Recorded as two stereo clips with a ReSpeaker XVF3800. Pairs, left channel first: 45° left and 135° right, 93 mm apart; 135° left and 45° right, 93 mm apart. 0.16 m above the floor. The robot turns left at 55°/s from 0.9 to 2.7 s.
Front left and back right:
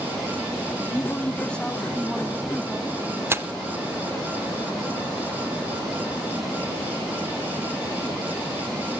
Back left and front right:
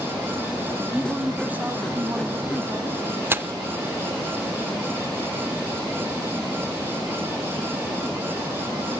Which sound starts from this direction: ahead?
A woman speaking, at 0.9 s.